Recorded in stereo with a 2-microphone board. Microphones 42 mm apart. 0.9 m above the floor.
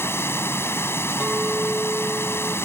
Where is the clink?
10° right (ahead or behind).